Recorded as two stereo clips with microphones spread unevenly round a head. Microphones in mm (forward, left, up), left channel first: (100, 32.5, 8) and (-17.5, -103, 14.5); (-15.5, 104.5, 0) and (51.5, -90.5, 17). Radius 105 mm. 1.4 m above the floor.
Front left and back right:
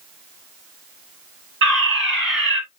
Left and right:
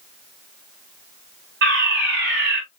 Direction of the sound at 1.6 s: 115° right.